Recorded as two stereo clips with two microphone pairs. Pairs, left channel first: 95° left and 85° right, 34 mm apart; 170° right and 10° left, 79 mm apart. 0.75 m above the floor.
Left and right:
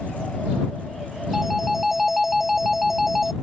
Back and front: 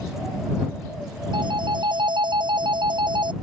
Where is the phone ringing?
Straight ahead.